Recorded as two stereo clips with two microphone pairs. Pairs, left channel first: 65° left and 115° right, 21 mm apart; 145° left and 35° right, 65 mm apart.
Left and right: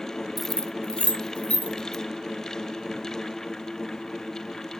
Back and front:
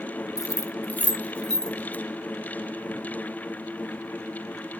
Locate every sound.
0.4 s keys jangling: 160° left, 0.6 m; by 2.0 s 65° left, 2.5 m